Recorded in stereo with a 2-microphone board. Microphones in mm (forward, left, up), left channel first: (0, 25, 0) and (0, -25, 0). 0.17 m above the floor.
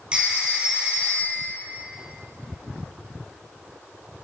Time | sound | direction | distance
0.1 | a phone ringing | 20° right (ahead or behind) | 3 m